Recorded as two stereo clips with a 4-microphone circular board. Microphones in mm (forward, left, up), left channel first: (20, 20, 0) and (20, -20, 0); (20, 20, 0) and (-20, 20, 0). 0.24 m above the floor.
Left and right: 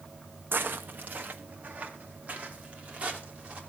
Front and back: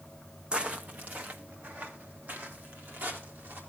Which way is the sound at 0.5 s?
115° right.